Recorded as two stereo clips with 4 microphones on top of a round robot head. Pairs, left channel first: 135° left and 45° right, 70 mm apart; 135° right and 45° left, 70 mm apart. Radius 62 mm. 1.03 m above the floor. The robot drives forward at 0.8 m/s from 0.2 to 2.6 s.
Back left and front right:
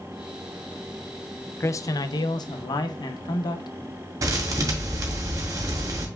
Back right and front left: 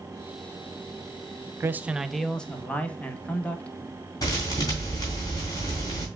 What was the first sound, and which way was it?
A man speaking, 85° left.